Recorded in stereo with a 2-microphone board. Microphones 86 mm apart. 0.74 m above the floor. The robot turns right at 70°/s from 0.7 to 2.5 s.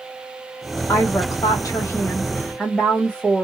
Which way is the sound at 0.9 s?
50° left.